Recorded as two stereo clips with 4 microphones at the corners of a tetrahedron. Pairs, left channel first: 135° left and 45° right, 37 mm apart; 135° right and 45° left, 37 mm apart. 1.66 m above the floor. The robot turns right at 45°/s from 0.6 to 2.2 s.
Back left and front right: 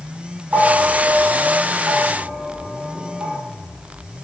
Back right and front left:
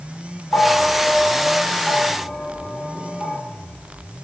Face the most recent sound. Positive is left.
turn(degrees=-45)